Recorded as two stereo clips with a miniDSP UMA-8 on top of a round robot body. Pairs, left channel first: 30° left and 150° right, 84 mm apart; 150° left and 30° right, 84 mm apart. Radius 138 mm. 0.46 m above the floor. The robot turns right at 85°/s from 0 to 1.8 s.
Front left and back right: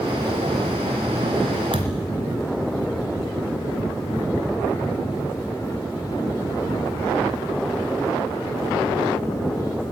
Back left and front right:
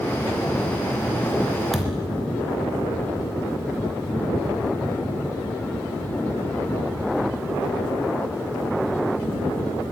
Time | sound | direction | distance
1.7 | a thud | 125° right | 3 m